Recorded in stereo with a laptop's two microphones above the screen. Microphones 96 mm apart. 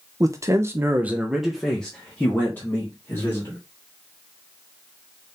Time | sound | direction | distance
0.2 | a man speaking | 35° right (ahead or behind) | 0.8 m